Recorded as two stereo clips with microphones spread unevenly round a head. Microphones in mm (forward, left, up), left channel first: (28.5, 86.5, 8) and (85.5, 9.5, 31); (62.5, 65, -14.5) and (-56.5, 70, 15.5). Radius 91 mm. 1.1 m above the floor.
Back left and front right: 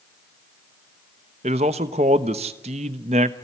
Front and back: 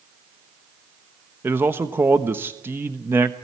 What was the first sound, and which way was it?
A man speaking, 100° right.